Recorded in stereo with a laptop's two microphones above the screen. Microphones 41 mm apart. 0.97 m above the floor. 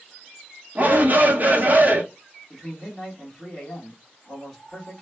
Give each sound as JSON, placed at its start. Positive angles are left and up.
{"t": 0.8, "sound": "a shout", "side_deg": -45, "distance_m": 0.9}
{"t": 2.5, "sound": "a man speaking", "side_deg": 10, "distance_m": 1.5}